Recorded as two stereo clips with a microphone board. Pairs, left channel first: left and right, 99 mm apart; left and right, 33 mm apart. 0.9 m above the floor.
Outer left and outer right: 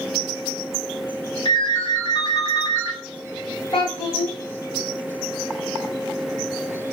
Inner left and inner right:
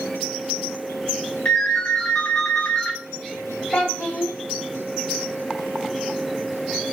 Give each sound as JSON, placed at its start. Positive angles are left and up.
{"t": 1.4, "sound": "a ringtone", "side_deg": 60, "distance_m": 1.3}
{"t": 3.7, "sound": "a child speaking", "side_deg": 60, "distance_m": 1.4}